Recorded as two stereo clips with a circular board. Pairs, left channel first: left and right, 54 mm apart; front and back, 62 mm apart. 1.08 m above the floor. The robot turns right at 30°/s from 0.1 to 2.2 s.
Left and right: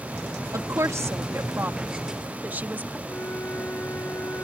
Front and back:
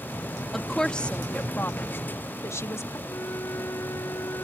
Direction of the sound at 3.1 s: 45° left.